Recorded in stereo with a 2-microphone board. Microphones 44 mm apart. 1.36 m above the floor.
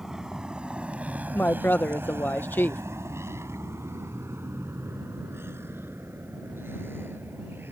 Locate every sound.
0.0 s a vehicle: 15° right (ahead or behind); by 7.7 s 50° right (ahead or behind)
1.3 s a woman speaking: 50° left (ahead or behind)